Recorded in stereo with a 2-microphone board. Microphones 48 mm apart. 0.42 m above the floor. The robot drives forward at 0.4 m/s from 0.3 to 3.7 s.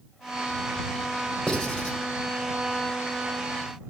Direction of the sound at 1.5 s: 10° left (ahead or behind).